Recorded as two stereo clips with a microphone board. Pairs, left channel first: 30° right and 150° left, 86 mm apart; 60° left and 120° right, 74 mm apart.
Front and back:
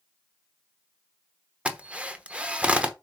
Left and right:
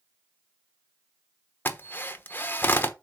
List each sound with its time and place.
1.6 s a drill: 85° left, 1.0 m